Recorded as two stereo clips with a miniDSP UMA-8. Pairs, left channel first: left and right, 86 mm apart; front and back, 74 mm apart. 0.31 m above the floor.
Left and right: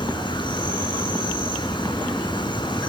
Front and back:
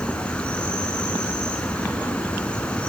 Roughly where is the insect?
Left.